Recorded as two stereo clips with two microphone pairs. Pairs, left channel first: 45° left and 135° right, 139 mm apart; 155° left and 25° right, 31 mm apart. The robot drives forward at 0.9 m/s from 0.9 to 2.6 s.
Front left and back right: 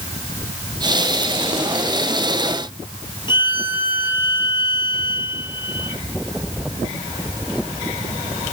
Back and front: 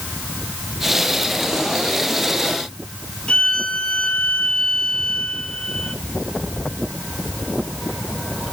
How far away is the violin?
About 2 m.